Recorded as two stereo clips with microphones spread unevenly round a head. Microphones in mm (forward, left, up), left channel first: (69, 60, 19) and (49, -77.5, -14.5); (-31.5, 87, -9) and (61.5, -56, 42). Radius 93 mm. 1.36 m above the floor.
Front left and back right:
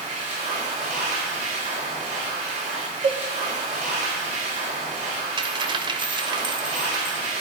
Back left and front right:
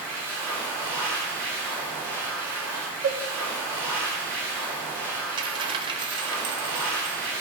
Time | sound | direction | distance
0.0 | a machine running | 155° right | 3 m
3.0 | a cowbell | 45° right | 1.2 m
5.4 | a dropped coin | 40° right | 1.1 m